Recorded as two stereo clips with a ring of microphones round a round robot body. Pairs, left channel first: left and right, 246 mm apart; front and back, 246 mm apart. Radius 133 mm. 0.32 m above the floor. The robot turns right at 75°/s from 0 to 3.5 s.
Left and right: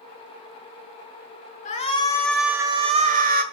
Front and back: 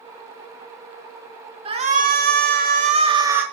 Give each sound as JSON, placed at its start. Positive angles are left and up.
{"t": 1.6, "sound": "a shout", "azimuth_deg": 125, "distance_m": 1.3}